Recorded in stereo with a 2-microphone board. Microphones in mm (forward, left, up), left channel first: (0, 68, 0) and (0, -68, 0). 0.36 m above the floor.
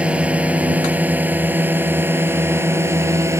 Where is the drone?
10° right (ahead or behind); by 3.4 s 20° right (ahead or behind).